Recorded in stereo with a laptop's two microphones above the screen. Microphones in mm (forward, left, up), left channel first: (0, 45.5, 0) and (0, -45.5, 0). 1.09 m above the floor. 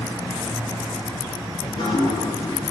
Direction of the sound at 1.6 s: 65° left (ahead or behind).